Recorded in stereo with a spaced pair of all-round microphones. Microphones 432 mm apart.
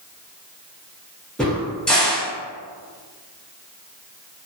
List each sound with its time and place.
1.4 s a crack: centre (ahead or behind), 0.9 m